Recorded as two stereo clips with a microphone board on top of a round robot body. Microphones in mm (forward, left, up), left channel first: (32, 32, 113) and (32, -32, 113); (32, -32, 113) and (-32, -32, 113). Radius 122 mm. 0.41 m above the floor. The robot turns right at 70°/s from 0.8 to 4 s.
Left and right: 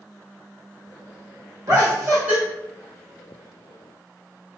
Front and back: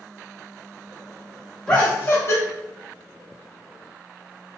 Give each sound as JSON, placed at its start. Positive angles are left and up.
{"t": 1.7, "sound": "laughter", "azimuth_deg": -75, "distance_m": 1.7}